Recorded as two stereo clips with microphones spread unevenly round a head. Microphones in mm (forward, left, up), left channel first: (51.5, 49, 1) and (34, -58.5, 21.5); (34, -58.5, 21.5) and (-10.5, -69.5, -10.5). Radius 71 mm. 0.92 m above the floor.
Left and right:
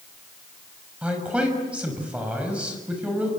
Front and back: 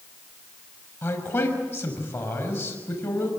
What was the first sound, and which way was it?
A man speaking, 20° right.